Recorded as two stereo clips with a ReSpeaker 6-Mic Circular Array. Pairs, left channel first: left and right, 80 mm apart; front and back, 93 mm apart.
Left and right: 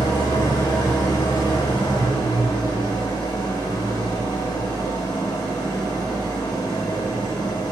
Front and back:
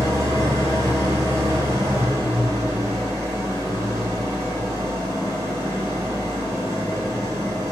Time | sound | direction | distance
0.0 | an engine running | 125° left | 4.5 m